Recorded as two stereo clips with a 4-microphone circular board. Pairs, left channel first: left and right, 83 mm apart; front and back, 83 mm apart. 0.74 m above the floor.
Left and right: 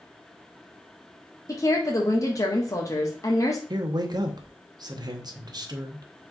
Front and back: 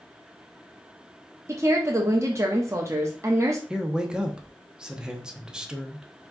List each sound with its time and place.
1.5 s a woman speaking: 130° left, 0.9 m
3.7 s a man speaking: 100° right, 0.8 m